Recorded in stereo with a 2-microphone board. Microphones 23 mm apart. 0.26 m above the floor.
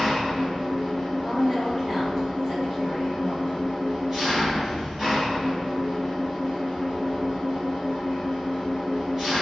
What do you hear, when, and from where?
0.0 s an engine running: 15° right (ahead or behind), 1.3 m
1.2 s a woman speaking: 20° right (ahead or behind), 1.4 m